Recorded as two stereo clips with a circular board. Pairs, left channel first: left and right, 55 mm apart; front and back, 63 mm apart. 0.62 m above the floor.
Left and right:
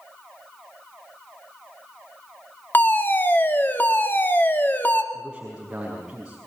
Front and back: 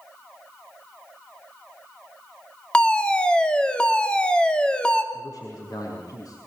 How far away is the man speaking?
About 5.5 m.